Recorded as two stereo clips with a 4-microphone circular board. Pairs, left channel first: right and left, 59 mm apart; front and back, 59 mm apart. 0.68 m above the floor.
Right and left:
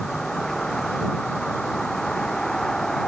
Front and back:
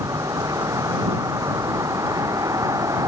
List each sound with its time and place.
0.0 s a vehicle: 175° right